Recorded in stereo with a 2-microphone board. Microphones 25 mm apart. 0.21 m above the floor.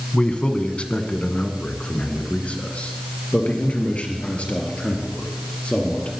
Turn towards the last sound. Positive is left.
turn(degrees=50)  # may be behind; listen again after turning